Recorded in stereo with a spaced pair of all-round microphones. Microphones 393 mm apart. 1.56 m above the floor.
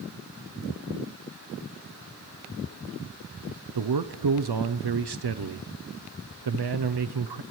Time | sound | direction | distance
3.8 | a man speaking | 80° right | 0.6 m